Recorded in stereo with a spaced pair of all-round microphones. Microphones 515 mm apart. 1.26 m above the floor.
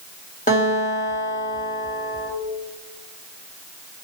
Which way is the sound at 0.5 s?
15° left (ahead or behind).